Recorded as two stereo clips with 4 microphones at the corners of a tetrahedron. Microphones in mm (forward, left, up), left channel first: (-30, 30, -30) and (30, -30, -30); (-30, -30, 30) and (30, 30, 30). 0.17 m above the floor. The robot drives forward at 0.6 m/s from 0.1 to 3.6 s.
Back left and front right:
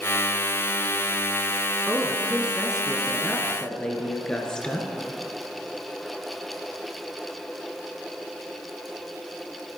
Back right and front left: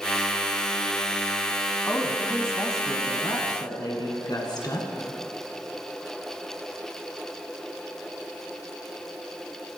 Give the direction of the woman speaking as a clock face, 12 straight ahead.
3 o'clock.